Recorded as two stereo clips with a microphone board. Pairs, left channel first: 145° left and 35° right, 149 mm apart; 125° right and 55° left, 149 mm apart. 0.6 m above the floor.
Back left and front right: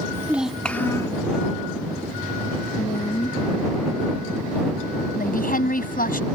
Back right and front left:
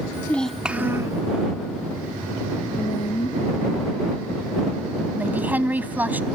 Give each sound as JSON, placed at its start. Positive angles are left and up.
{"t": 0.1, "sound": "a child speaking", "azimuth_deg": -80}
{"t": 2.8, "sound": "a woman speaking", "azimuth_deg": -170}
{"t": 5.2, "sound": "a woman speaking", "azimuth_deg": 135}